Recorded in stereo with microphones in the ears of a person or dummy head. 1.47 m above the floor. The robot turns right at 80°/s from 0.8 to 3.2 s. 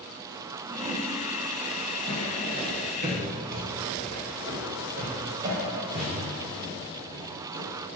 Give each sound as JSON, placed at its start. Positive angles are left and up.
{"t": 0.7, "sound": "a whoosh", "side_deg": -10, "distance_m": 1.0}
{"t": 2.1, "sound": "footsteps", "side_deg": 30, "distance_m": 1.6}